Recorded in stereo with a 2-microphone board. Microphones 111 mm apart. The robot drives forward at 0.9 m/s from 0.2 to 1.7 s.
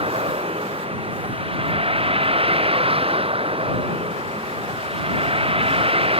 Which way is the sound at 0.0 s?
60° right (ahead or behind).